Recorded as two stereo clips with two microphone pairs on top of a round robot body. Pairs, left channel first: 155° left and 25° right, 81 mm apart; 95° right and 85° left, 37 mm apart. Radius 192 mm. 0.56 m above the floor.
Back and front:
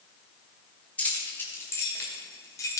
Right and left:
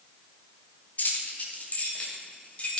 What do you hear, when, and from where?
1.0 s keys jangling: 135° right, 2 m; by 2.8 s 155° right, 3 m